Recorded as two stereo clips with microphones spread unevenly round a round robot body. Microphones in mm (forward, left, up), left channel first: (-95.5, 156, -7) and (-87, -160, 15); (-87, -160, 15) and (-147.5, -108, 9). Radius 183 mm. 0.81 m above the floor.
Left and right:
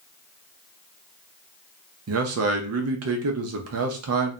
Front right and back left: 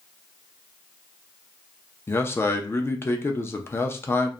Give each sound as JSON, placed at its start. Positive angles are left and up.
{"t": 2.1, "sound": "a man speaking", "azimuth_deg": -95, "distance_m": 0.5}